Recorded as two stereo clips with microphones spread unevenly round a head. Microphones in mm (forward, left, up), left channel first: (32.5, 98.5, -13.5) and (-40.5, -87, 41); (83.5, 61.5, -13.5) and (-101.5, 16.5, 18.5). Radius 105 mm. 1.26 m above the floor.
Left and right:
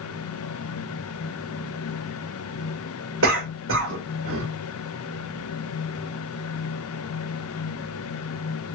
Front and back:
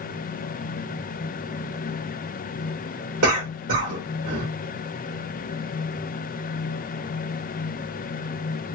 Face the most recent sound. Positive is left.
turn(degrees=-145)